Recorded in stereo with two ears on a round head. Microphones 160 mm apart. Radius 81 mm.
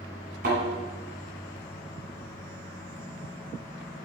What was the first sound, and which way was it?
A thud, 50° right (ahead or behind).